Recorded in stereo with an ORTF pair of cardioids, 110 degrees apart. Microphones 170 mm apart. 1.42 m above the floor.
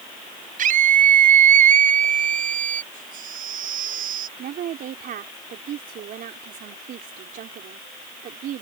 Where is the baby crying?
55° right.